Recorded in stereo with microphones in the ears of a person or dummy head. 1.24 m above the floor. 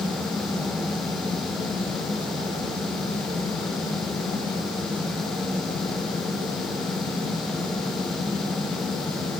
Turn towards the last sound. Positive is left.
No sound to turn to.